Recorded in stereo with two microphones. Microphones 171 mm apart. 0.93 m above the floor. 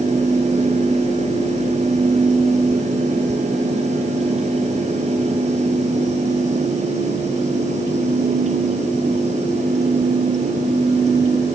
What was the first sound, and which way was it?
Only background noise.